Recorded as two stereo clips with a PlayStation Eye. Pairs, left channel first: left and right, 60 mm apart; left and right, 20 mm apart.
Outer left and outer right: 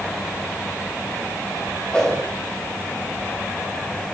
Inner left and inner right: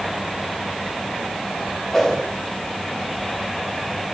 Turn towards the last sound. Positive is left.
turn(degrees=20)  # may be behind; listen again after turning